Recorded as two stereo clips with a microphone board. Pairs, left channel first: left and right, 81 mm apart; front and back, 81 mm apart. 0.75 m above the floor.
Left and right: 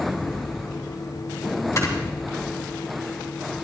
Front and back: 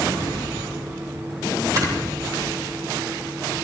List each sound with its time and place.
1.8 s snoring: 140° left, 2.5 m